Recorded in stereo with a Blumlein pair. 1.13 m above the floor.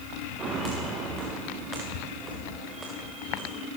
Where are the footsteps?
20° right, 6.5 m.